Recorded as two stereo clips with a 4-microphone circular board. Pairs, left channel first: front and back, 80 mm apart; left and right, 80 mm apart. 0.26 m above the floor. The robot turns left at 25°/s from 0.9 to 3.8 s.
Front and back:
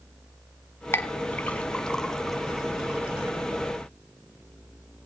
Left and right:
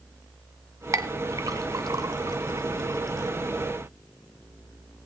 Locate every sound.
0.9 s a clink: 55° right, 1.1 m; by 3.4 s 115° right, 1.1 m